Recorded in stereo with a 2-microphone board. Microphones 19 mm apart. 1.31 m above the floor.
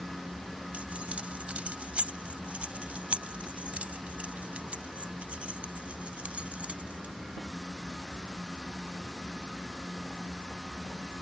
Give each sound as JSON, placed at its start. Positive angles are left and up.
{"t": 0.7, "sound": "keys jangling", "side_deg": -80}